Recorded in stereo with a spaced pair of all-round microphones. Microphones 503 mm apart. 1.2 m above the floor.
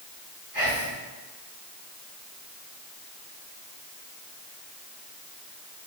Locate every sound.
0.5 s whispering: 40° right (ahead or behind), 1.6 m